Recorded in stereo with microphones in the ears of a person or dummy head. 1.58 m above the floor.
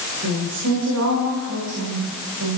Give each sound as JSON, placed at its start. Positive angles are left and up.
{"t": 0.2, "sound": "a woman speaking", "side_deg": -85, "distance_m": 5.5}